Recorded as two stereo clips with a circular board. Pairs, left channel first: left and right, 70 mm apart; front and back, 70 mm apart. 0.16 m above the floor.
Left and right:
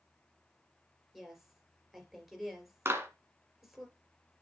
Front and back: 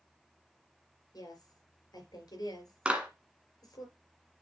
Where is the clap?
115° right, 1.5 m.